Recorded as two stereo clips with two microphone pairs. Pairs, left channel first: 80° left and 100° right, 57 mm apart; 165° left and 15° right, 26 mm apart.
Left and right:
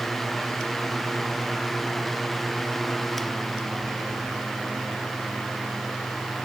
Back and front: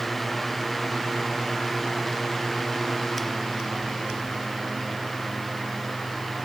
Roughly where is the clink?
No clink in this recording.